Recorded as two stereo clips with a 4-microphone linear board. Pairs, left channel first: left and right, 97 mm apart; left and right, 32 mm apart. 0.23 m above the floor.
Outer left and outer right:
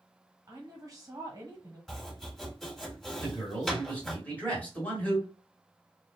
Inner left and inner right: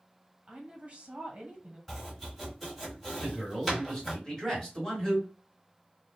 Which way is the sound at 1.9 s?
5° left (ahead or behind).